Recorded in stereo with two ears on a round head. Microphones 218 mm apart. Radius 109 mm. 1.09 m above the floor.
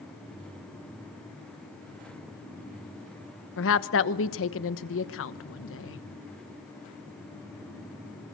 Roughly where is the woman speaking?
Left.